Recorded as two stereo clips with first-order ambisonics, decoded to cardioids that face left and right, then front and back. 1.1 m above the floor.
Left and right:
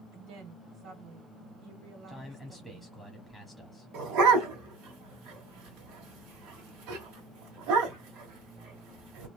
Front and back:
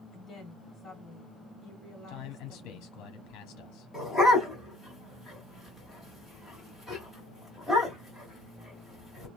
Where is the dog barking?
95° right, 1.5 m.